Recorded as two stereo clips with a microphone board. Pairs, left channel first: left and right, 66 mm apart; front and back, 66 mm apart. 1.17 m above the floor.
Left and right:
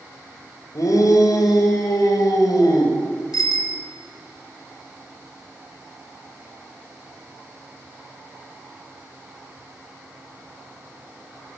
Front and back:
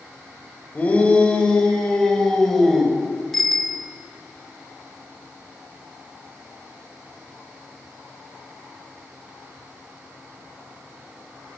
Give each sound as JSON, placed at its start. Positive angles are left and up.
{"t": 0.8, "sound": "a shout", "azimuth_deg": 70, "distance_m": 4.0}
{"t": 3.3, "sound": "a bicycle bell", "azimuth_deg": 85, "distance_m": 2.5}